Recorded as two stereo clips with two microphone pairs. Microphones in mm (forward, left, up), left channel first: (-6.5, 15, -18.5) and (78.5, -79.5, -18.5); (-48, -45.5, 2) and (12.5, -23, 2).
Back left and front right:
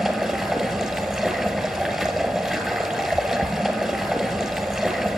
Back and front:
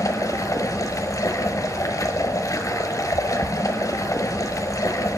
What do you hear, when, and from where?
0.0 s running water: 135° right, 1.4 m